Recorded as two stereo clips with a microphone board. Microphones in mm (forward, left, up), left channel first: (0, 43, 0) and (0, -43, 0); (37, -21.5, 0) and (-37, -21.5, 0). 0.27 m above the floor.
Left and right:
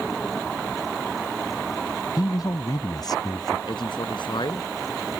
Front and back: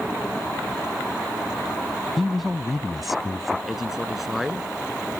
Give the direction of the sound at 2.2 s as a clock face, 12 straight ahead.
9 o'clock.